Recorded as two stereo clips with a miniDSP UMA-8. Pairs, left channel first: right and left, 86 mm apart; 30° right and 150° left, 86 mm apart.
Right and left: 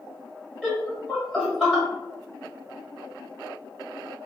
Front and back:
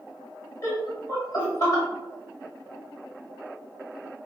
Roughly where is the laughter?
Ahead.